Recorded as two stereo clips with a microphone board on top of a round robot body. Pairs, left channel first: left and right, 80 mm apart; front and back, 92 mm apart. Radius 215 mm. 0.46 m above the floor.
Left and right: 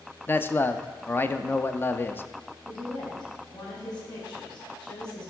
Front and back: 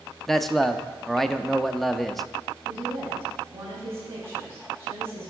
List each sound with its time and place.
0.3 s a man speaking: 85° left, 0.7 m
2.6 s a woman speaking: 120° left, 4.5 m